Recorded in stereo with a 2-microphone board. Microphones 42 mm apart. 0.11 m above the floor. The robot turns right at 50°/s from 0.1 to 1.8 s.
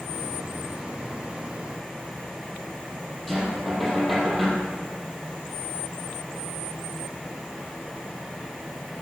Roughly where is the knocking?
Centre.